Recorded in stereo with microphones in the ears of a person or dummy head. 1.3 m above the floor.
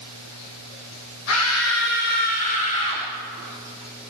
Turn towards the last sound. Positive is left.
turn(degrees=30)  # may be behind; listen again after turning